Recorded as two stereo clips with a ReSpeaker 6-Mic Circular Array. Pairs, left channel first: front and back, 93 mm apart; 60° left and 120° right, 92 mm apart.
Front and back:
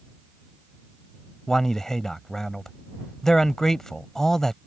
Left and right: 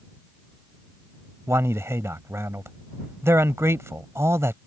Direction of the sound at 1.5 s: 80° right.